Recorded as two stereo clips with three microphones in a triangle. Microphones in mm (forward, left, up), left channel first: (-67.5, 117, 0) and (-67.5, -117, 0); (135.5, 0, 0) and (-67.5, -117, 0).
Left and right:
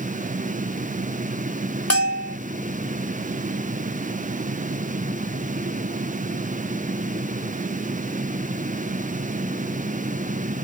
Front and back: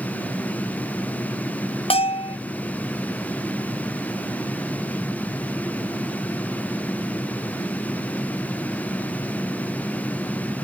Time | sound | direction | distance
1.9 | a bell | 95° left | ?